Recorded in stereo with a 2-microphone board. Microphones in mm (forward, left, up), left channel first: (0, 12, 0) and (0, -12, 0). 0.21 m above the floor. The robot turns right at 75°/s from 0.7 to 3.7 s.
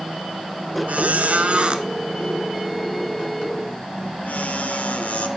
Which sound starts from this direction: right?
A squeak, at 0.9 s.